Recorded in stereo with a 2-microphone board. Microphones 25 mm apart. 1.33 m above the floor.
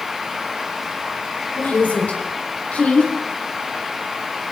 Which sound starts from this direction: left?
A woman speaking, at 1.6 s.